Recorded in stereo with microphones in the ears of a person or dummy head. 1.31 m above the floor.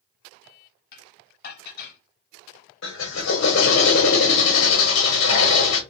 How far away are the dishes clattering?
About 0.9 m.